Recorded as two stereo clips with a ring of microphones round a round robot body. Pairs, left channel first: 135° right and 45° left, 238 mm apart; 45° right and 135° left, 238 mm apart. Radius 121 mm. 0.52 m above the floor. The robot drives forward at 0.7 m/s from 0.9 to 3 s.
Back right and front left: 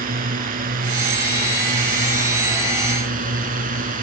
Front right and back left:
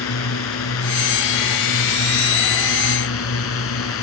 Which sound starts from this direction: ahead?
A drone, at 0.0 s.